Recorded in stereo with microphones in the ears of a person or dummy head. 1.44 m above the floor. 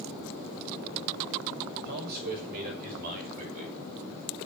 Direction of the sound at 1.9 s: 55° right (ahead or behind).